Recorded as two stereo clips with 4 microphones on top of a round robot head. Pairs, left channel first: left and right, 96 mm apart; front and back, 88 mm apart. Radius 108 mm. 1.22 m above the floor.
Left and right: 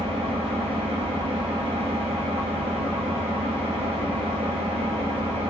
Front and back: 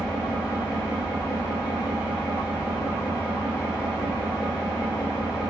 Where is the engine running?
105° right, 0.8 m.